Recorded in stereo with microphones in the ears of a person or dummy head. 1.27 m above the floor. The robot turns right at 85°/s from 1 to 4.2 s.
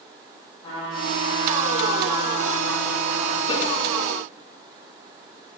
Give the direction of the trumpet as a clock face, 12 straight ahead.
11 o'clock.